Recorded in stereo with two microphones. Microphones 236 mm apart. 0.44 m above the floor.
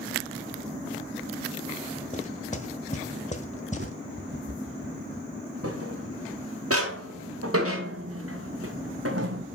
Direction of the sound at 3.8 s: 50° right (ahead or behind).